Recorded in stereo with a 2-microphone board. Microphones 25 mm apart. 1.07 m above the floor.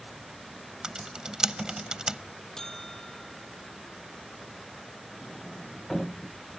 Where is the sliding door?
10° left (ahead or behind).